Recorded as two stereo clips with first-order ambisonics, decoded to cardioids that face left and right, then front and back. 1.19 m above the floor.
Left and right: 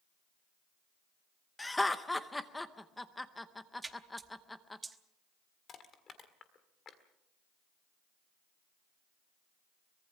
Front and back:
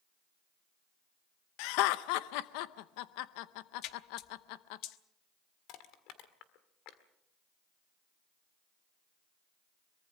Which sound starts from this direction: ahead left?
Crushing, at 5.7 s.